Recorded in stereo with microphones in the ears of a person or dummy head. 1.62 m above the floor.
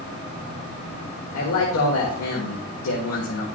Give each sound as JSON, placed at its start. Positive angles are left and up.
{"t": 1.3, "sound": "a man speaking", "side_deg": 80, "distance_m": 1.4}